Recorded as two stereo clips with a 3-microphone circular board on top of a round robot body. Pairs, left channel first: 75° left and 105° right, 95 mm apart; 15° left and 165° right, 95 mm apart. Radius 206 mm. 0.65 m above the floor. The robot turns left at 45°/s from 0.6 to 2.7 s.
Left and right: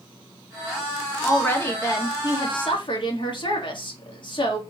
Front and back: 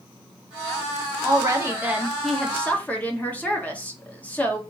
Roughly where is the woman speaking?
Behind left.